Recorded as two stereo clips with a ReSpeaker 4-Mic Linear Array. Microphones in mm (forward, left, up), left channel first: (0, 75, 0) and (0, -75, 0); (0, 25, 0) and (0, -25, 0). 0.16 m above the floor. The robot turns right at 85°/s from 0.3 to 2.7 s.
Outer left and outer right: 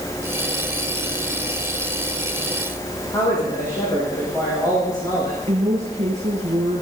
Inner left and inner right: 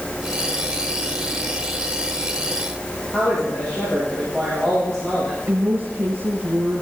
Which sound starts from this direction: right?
A woman speaking, at 5.5 s.